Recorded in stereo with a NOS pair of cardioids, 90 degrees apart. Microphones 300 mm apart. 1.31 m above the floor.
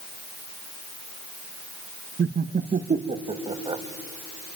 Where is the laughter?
35° right, 1.1 m; by 3.8 s 15° right, 1.8 m.